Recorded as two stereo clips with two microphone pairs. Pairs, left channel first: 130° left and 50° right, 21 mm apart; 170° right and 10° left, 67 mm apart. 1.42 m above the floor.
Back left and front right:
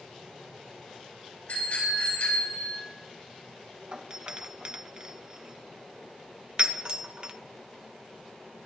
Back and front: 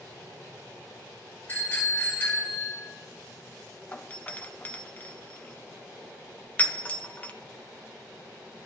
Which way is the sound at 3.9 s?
100° right.